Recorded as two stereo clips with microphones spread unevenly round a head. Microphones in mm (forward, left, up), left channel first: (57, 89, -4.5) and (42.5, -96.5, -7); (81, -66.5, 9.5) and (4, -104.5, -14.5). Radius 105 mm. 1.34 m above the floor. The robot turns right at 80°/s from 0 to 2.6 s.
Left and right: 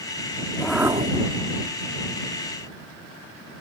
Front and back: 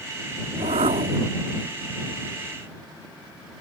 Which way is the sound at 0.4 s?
155° left.